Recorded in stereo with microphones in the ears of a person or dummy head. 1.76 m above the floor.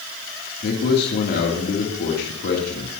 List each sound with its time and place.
0.6 s a man speaking: 55° left (ahead or behind), 3 m